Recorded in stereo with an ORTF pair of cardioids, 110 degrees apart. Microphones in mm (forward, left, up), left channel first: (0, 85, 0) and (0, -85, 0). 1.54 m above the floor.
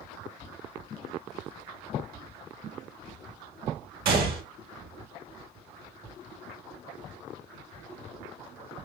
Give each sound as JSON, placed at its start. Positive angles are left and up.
{"t": 4.0, "sound": "a gunshot", "azimuth_deg": -65, "distance_m": 1.2}